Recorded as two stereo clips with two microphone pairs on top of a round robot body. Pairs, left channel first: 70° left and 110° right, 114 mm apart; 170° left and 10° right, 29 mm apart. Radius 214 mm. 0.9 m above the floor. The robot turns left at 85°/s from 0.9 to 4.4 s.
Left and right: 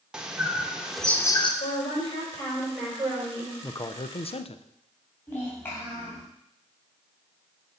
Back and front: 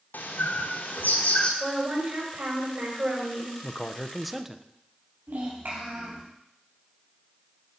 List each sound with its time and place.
0.1 s a bird: 170° left, 1.0 m; by 1.5 s 115° left, 1.0 m
1.6 s a woman speaking: 65° left, 5 m; by 3.5 s 100° right, 5 m
3.6 s a man speaking: 135° left, 0.8 m; by 4.6 s 70° left, 0.8 m
5.3 s a child speaking: 5° right, 2.5 m